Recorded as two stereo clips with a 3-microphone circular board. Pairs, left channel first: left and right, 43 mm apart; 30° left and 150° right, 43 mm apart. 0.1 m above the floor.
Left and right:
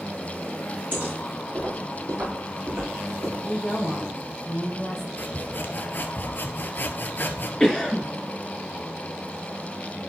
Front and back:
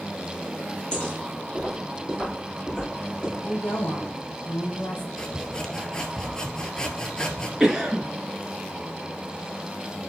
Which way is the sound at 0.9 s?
40° right.